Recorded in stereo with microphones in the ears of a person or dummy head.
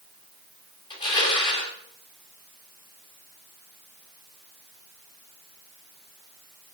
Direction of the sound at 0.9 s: 30° left (ahead or behind).